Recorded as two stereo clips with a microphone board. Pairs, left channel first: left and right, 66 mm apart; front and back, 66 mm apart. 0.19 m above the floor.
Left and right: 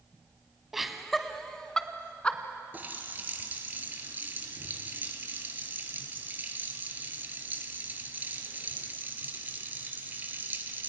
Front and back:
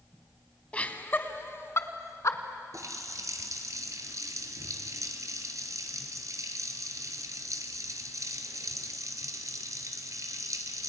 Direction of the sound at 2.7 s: 150° right.